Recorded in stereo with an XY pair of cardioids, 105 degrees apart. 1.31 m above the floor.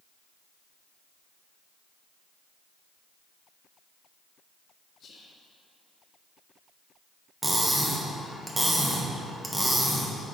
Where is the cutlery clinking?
10° right, 1.1 m.